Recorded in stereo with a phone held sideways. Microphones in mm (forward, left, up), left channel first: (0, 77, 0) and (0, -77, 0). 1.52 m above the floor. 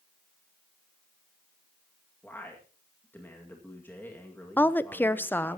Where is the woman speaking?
10° left (ahead or behind), 0.6 m.